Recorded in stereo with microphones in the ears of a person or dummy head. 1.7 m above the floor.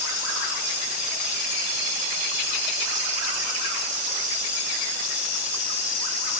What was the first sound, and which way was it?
Only background noise.